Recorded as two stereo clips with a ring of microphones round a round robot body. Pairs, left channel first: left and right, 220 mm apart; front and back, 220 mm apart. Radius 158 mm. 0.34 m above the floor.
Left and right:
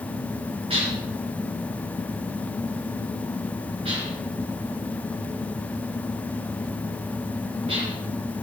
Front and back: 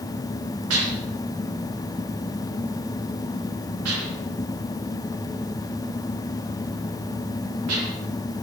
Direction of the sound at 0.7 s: 165° right.